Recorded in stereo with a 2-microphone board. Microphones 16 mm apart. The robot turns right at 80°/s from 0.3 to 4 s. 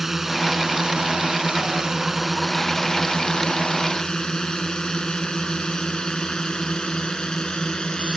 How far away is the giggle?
I don't hear a giggle.